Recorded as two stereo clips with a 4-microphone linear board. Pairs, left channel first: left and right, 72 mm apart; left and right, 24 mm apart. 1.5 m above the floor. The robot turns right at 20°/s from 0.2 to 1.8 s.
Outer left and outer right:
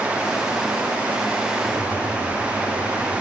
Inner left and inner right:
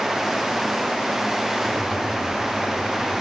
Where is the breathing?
20° left (ahead or behind), 4 m; by 3.2 s 15° left (ahead or behind), 4 m.